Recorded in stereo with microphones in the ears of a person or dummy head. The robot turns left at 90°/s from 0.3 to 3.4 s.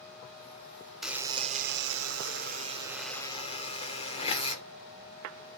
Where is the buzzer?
Straight ahead, 0.9 m; by 4.6 s 145° left, 0.9 m.